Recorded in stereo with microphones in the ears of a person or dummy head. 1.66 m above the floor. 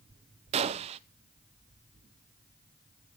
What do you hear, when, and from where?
0.5 s a gunshot: 40° right (ahead or behind), 0.8 m